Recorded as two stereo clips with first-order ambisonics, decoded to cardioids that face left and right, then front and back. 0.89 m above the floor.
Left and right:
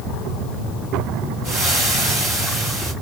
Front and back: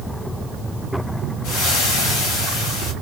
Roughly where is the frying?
Ahead.